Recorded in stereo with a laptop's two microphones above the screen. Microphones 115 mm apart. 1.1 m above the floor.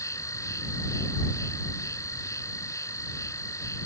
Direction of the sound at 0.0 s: 25° left (ahead or behind).